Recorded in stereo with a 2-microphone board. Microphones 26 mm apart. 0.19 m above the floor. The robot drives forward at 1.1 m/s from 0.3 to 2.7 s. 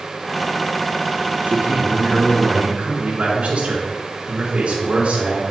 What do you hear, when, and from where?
1.4 s a man speaking: 55° right (ahead or behind), 2.5 m; by 5.4 s 50° right (ahead or behind), 2.5 m